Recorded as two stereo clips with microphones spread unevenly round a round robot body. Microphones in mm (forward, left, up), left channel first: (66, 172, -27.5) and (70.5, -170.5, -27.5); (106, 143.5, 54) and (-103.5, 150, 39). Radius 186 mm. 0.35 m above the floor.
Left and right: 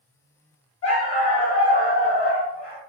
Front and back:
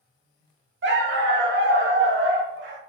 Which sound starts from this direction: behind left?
A dog barking, at 0.8 s.